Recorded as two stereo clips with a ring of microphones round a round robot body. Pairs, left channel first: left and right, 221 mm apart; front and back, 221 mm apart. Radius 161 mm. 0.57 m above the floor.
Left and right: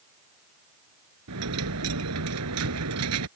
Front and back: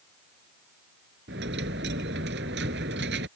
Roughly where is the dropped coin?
Behind right.